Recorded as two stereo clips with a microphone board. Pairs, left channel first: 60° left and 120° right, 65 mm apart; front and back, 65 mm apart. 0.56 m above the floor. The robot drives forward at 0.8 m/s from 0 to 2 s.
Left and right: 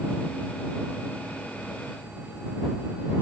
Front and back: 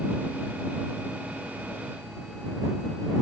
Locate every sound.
Only background noise.